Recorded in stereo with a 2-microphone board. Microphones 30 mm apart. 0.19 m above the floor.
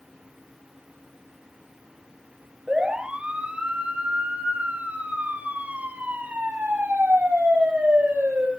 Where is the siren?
35° right (ahead or behind), 5 m; by 8.5 s 75° right (ahead or behind), 7.5 m.